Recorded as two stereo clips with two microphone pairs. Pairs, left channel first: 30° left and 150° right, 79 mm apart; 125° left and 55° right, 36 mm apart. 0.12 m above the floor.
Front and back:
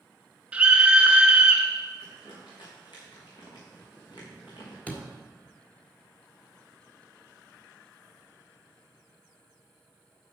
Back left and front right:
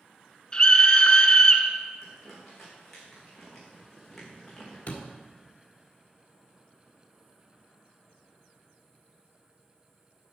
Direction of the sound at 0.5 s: 150° left.